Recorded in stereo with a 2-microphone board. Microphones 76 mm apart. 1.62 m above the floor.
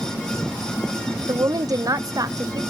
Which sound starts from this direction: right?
A woman speaking, at 1.3 s.